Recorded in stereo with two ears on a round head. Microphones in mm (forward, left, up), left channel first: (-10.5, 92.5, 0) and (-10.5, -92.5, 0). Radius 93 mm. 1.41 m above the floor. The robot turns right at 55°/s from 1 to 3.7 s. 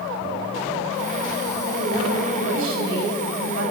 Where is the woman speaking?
160° right, 8 m; by 3.7 s 50° right, 8 m.